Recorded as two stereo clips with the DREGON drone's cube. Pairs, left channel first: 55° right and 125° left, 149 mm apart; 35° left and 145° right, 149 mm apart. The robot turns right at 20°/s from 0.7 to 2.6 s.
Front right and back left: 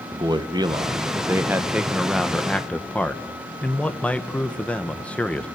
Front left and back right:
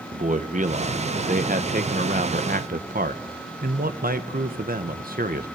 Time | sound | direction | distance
0.1 | a man speaking | 175° right | 1.3 m